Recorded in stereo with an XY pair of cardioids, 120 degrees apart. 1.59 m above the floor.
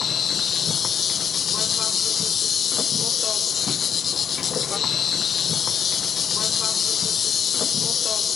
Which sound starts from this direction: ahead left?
An insect, at 0.0 s.